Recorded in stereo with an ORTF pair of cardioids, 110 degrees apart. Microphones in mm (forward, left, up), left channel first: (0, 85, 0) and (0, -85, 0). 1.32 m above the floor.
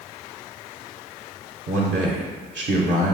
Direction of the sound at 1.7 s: 45° right.